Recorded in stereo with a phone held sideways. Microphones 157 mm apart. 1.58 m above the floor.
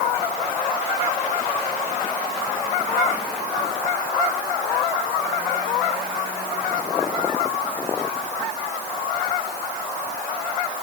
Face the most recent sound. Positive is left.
No sound to turn to.